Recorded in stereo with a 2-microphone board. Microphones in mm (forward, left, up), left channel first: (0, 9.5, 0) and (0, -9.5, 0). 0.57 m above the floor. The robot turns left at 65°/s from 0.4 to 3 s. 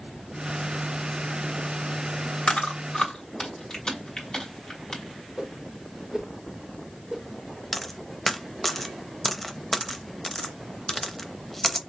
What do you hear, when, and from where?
2.5 s chewing: 70° left (ahead or behind), 2.5 m; by 5.0 s 45° left (ahead or behind), 2.5 m
5.4 s a whoosh: 25° right (ahead or behind), 1.7 m
7.7 s a dropped coin: 10° left (ahead or behind), 0.6 m